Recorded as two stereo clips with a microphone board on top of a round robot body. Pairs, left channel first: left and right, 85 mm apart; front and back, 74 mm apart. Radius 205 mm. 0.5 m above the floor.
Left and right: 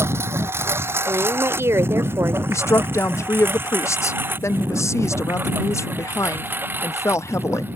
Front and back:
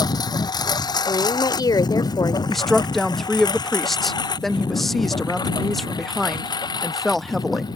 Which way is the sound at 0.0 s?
25° right.